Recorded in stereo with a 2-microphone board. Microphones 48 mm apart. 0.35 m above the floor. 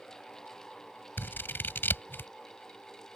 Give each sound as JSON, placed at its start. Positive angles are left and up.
{"t": 1.2, "sound": "scissors", "side_deg": 50}